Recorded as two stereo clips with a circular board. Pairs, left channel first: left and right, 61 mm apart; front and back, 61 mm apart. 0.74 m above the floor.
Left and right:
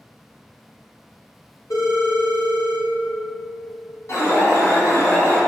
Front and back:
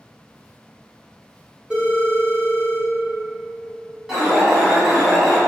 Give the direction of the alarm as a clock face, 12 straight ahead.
9 o'clock.